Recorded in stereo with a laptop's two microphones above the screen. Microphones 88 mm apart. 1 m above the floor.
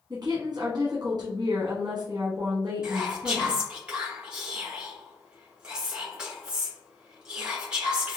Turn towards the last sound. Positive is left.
turn(degrees=-10)  # may be behind; listen again after turning